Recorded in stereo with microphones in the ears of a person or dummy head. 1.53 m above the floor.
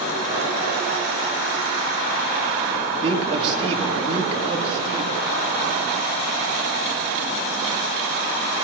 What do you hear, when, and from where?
3.0 s a man speaking: 35° right (ahead or behind), 3 m